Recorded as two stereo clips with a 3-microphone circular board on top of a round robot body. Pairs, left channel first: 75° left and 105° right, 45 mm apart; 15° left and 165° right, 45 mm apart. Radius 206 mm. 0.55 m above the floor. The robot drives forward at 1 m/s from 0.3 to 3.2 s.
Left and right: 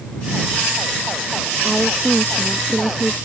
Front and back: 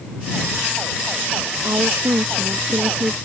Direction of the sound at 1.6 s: 165° left.